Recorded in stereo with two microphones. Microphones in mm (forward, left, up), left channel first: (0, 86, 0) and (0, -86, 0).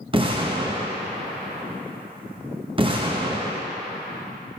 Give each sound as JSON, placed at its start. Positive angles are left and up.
{"t": 0.1, "sound": "an explosion", "side_deg": -30, "distance_m": 0.8}